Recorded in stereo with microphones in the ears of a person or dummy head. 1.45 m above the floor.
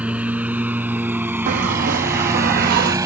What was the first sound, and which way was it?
A lawn mower, 10° right (ahead or behind).